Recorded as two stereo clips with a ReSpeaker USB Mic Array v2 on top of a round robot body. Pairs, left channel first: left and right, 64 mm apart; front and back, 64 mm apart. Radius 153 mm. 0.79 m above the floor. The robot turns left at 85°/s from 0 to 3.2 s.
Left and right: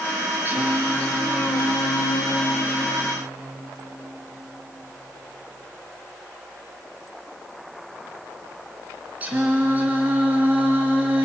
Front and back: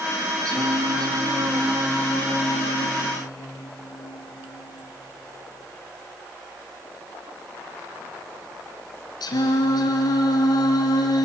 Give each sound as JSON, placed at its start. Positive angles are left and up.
{"t": 0.5, "sound": "singing", "azimuth_deg": -150, "distance_m": 2.5}